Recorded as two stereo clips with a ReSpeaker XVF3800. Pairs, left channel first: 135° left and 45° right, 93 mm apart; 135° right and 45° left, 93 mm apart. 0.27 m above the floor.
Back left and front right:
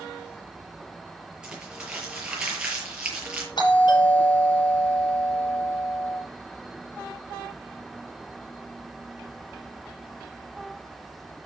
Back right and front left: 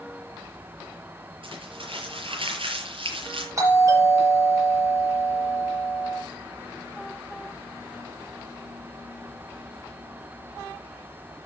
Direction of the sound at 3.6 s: 100° left.